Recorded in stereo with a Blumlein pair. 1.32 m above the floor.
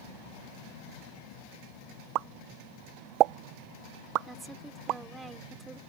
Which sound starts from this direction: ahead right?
A pop, at 2.1 s.